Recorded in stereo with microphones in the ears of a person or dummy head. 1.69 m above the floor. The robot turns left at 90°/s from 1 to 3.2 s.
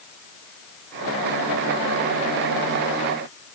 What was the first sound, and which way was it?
Only background noise.